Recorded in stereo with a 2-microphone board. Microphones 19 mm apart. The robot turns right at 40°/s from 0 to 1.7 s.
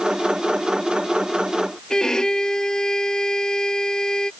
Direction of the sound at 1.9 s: 35° left (ahead or behind).